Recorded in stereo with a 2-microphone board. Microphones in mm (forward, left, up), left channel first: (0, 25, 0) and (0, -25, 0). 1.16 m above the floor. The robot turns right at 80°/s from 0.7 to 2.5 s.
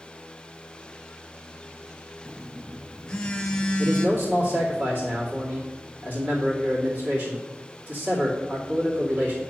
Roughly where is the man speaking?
Right.